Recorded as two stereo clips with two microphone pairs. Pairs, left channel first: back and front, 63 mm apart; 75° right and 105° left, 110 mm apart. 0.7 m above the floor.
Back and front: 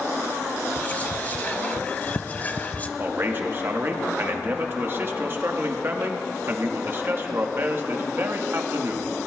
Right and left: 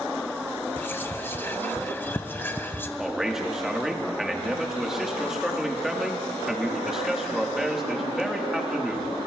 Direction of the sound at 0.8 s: 130° right.